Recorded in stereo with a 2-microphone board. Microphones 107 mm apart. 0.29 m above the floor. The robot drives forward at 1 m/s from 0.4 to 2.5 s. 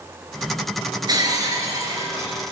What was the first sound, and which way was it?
Breaking glass, 40° right (ahead or behind).